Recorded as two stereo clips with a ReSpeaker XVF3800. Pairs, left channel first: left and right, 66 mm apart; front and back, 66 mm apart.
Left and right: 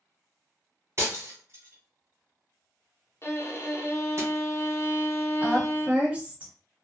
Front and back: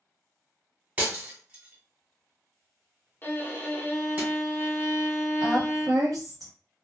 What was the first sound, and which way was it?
Breaking glass, 120° right.